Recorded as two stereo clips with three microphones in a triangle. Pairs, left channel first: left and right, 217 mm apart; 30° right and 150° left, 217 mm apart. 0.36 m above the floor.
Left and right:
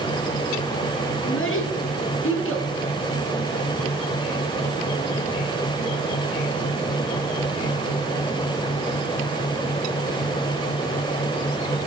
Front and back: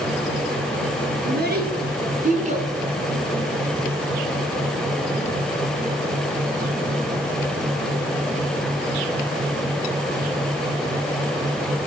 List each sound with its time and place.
1.2 s a child speaking: 110° left, 3 m; by 2.7 s 90° left, 1.6 m